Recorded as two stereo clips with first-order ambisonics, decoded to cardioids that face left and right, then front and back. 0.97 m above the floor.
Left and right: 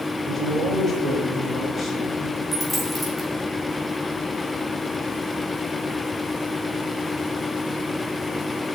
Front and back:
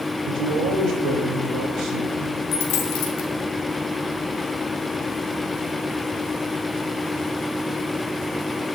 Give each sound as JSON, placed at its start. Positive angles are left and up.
{"t": 0.2, "sound": "a man speaking", "azimuth_deg": 180, "distance_m": 3.0}
{"t": 2.5, "sound": "a dropped coin", "azimuth_deg": -10, "distance_m": 2.0}